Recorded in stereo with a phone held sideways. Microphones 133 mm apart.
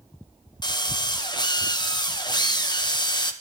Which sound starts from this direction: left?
A drill, at 0.6 s.